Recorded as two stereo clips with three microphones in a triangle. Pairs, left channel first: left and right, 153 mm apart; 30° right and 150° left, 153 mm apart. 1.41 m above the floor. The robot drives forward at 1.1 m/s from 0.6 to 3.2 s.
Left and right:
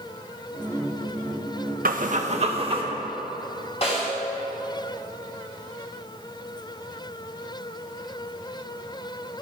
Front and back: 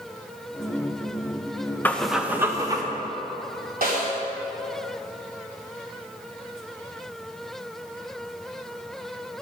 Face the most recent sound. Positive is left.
turn(degrees=135)